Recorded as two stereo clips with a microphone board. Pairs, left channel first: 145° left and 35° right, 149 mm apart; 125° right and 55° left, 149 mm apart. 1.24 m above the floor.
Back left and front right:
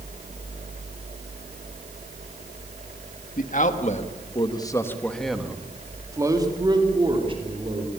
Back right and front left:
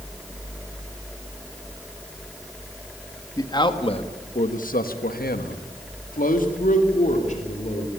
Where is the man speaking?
170° left, 1.8 m; by 7.9 s 85° right, 3.5 m.